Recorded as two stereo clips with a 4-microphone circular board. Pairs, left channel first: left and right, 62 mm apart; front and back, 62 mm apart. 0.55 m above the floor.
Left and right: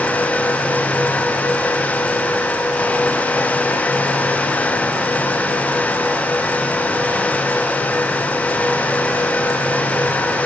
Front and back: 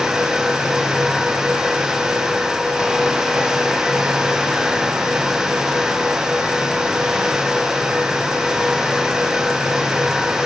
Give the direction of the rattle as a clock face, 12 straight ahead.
I don't hear a rattle.